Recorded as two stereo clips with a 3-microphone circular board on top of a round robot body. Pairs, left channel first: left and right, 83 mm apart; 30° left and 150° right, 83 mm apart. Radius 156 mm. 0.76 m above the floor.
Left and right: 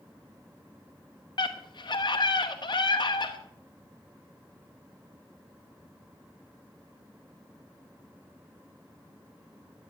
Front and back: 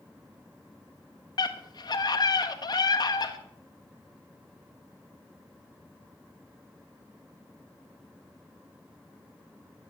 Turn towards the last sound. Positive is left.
turn(degrees=60)